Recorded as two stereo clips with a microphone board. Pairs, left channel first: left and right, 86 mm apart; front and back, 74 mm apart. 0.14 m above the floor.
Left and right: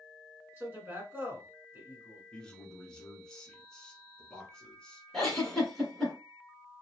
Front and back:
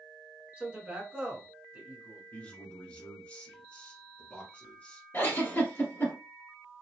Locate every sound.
0.6 s a man speaking: 125° right, 1.5 m
2.3 s a man speaking: 30° left, 1.0 m
5.1 s a giggle: 10° left, 1.5 m